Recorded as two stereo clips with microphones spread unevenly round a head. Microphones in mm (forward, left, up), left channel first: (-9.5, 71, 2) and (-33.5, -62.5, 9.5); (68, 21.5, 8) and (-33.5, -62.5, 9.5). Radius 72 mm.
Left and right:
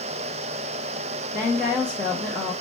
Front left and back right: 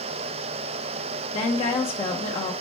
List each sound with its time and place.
1.3 s a woman speaking: 5° right, 1.0 m